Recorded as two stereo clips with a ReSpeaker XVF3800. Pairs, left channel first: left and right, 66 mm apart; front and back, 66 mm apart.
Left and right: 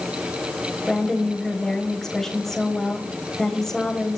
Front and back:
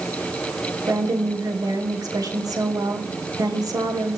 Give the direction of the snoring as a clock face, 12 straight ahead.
No snoring in this recording.